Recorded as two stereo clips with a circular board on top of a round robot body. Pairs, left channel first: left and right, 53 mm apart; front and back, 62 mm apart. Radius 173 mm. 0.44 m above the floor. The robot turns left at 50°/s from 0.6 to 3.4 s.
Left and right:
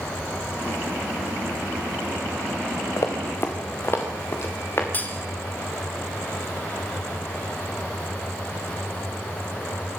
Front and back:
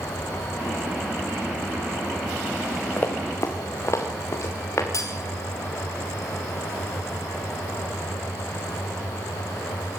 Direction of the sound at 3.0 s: 60° left.